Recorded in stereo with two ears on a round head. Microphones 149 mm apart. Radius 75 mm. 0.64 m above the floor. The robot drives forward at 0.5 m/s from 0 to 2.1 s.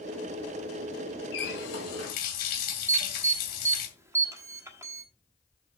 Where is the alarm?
15° right (ahead or behind), 1.4 m.